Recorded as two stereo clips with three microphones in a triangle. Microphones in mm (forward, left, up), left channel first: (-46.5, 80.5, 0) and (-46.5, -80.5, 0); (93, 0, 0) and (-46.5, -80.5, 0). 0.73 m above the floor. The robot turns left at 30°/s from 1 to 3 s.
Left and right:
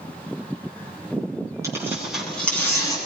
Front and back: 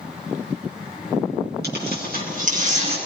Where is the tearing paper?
160° right, 7.5 m; by 3.0 s 160° left, 7.5 m.